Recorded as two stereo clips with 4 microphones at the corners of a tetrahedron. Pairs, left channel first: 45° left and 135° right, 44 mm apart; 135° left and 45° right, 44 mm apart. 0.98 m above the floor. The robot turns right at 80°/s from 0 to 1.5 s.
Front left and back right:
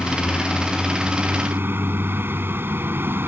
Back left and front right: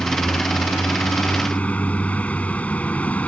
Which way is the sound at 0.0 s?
70° left.